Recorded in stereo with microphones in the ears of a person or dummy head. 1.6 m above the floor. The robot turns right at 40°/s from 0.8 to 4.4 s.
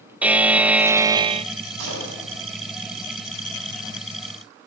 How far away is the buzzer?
About 0.6 m.